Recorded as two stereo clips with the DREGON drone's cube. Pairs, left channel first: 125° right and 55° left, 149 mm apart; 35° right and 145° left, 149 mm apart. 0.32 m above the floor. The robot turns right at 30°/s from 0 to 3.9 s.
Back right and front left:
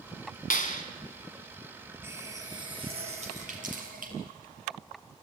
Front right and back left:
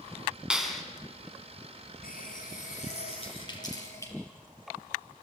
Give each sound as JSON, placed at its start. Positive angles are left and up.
{"t": 0.5, "sound": "a clap", "azimuth_deg": -130, "distance_m": 2.0}
{"t": 2.0, "sound": "a running tap", "azimuth_deg": -20, "distance_m": 4.0}